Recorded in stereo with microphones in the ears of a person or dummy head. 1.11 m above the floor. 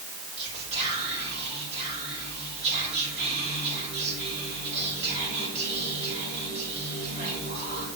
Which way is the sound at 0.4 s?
35° right (ahead or behind).